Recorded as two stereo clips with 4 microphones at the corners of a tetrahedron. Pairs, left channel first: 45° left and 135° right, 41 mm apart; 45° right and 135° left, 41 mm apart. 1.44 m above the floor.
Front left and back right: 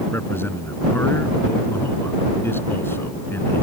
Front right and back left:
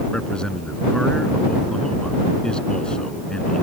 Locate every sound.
0.1 s a man speaking: 25° left